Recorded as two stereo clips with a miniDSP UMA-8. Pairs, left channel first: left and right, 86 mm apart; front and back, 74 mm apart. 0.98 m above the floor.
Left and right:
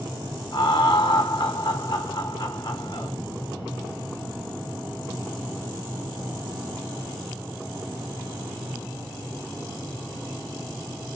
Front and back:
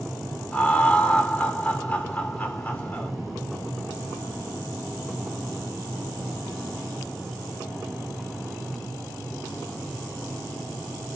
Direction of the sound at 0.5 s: 65° left.